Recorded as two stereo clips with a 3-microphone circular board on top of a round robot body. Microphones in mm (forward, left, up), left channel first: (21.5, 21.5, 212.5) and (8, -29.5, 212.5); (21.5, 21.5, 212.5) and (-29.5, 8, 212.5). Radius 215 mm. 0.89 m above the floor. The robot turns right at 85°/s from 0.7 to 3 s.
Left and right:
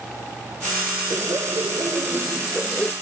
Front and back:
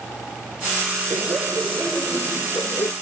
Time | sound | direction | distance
1.1 | laughter | 150° right | ?